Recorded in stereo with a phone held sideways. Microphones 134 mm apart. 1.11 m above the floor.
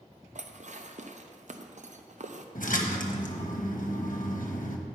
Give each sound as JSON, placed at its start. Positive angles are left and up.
{"t": 0.3, "sound": "dishes clattering", "side_deg": -60, "distance_m": 0.5}
{"t": 2.5, "sound": "a splash", "side_deg": 75, "distance_m": 1.0}